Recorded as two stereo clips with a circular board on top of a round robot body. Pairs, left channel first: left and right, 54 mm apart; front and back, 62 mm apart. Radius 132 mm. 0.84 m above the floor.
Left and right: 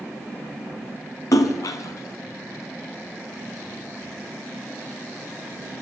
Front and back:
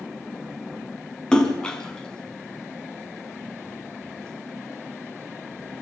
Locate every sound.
1.3 s a splash: 75° left, 1.2 m